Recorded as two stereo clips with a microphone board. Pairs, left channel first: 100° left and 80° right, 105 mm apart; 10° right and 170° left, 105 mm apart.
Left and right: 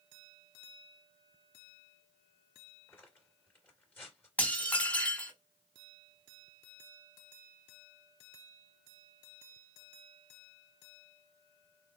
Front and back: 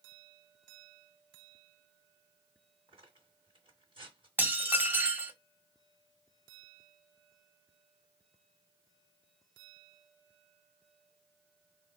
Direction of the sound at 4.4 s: 145° left.